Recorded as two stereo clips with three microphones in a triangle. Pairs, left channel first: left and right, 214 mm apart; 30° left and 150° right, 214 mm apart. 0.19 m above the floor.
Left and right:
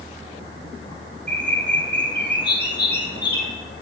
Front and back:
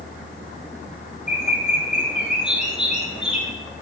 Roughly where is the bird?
Behind left.